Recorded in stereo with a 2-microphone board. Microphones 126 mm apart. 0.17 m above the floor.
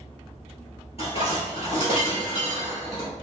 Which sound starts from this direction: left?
Dishes clattering, at 1.0 s.